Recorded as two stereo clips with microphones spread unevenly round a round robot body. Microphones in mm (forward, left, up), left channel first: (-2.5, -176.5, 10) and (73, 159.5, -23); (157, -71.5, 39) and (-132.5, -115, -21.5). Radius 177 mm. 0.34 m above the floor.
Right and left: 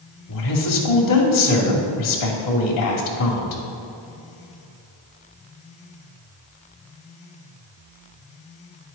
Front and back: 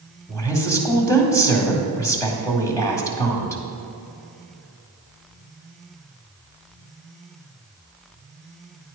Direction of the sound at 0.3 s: 75° right.